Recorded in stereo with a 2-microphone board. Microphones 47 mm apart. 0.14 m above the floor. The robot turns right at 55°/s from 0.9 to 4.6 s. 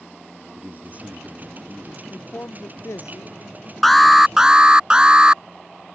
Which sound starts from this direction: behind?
An alarm, at 3.8 s.